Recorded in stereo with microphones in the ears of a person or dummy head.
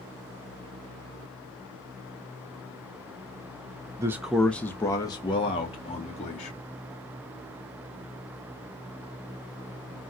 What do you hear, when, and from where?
4.0 s a man speaking: 20° right (ahead or behind), 0.5 m; by 6.6 s 35° left (ahead or behind), 1.6 m